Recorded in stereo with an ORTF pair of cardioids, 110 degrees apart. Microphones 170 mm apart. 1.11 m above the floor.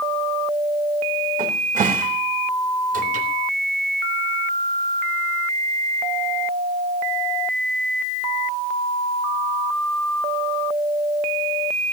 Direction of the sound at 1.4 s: 50° right.